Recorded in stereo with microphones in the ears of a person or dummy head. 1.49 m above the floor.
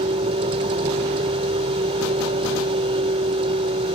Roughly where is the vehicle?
Right.